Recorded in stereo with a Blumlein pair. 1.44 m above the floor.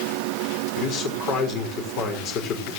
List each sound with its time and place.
0.8 s a man speaking: 35° left, 5.5 m